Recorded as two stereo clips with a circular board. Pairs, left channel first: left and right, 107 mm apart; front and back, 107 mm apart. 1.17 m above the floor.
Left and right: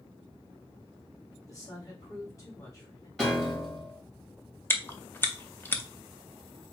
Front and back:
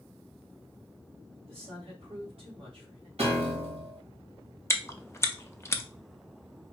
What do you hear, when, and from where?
1.5 s a woman speaking: 150° left, 2.5 m
3.2 s a piano: 175° left, 1.7 m
4.7 s chewing: 40° left, 0.6 m